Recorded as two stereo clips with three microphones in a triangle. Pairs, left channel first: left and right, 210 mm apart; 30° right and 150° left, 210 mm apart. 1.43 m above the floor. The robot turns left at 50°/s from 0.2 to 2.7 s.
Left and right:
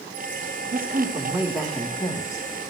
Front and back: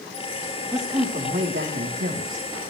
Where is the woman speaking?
130° right, 4.5 m; by 2.5 s 140° left, 4.5 m.